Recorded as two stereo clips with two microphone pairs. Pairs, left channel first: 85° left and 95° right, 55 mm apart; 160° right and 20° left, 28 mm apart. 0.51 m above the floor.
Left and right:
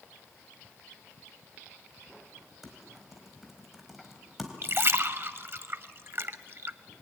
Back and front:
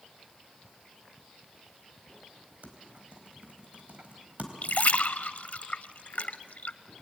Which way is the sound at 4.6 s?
140° right.